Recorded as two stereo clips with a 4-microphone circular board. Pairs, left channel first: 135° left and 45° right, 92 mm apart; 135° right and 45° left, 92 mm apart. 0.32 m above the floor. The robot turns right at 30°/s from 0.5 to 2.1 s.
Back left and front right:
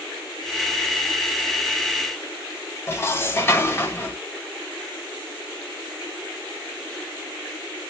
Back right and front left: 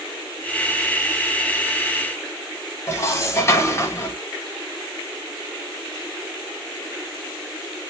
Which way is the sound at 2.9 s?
175° right.